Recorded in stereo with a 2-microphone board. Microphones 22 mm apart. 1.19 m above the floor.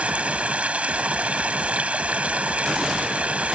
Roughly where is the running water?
Right.